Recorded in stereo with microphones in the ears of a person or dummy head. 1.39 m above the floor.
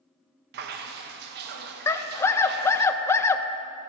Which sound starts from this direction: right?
Dripping, at 0.5 s.